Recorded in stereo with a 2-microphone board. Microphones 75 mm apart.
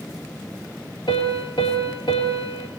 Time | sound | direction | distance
1.1 | a piano | 80° left | 5.5 m